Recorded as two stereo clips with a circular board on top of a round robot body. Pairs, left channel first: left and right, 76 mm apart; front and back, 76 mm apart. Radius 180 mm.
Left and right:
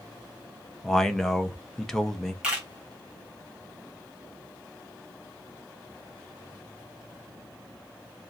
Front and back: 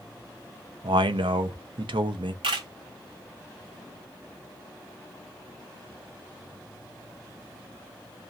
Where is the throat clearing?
No throat clearing in this recording.